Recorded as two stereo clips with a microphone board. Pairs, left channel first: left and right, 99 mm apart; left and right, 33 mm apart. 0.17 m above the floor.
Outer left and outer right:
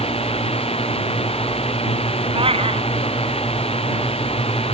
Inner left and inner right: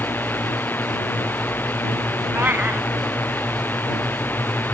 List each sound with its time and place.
0.0 s a drone: 85° left
2.3 s a cat meowing: 70° right (ahead or behind)